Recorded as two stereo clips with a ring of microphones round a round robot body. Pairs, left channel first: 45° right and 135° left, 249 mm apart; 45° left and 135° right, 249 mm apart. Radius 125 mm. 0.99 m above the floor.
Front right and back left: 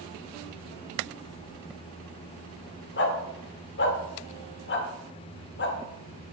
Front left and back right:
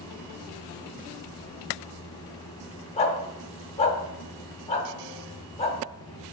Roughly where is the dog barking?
Ahead.